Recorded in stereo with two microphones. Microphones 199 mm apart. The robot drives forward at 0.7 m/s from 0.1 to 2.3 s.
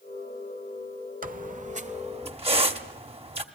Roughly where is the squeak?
Right.